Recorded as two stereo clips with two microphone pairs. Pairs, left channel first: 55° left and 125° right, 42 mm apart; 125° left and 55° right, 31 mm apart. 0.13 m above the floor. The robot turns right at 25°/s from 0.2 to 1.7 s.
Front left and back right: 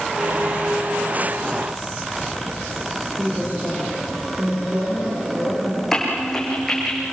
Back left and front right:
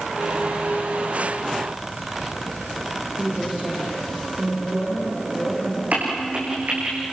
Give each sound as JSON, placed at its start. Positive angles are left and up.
{"t": 3.2, "sound": "a woman speaking", "azimuth_deg": -100, "distance_m": 7.5}
{"t": 5.9, "sound": "a crack", "azimuth_deg": -25, "distance_m": 7.5}